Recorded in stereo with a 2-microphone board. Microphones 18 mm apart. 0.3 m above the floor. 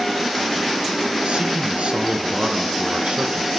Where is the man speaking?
75° right (ahead or behind), 3 m.